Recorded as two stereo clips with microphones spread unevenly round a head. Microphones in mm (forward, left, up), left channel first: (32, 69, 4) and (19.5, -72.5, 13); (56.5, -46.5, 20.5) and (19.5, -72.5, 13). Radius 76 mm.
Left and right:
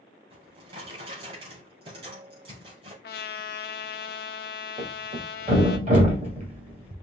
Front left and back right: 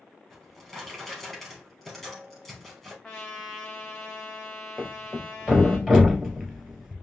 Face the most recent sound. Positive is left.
turn(degrees=-65)